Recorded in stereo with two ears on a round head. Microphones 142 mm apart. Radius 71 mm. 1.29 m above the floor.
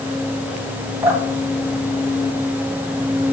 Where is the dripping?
20° right (ahead or behind), 3.5 m.